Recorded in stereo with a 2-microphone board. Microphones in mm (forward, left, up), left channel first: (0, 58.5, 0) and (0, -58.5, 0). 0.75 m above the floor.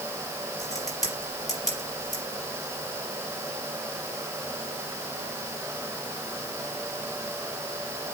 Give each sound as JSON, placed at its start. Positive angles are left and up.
{"t": 0.6, "sound": "a crack", "side_deg": 30, "distance_m": 5.0}